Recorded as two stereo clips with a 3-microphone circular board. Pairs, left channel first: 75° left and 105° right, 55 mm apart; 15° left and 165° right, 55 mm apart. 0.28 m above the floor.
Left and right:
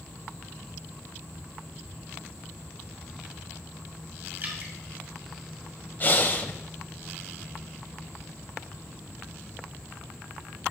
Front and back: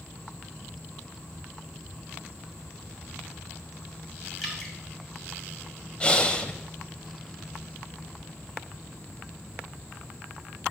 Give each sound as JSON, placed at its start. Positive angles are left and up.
{"t": 4.4, "sound": "dripping", "azimuth_deg": -75, "distance_m": 1.9}
{"t": 6.0, "sound": "breathing", "azimuth_deg": 70, "distance_m": 0.7}